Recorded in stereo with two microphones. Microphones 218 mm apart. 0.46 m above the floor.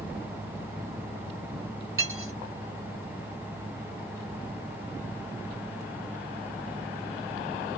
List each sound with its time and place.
2.0 s cutlery clinking: 70° right (ahead or behind), 1.6 m